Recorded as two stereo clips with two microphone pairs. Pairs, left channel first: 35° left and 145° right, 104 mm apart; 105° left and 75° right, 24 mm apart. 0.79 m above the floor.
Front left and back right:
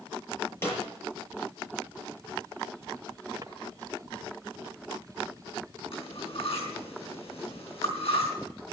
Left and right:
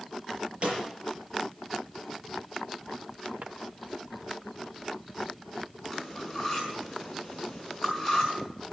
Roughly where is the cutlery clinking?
Ahead.